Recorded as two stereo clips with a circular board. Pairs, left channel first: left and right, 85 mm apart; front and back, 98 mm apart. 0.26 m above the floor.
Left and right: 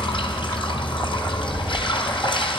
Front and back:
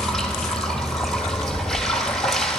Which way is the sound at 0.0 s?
90° left.